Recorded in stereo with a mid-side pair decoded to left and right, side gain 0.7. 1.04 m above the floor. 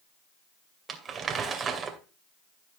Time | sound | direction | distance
0.9 | crumpling | 30° right | 2 m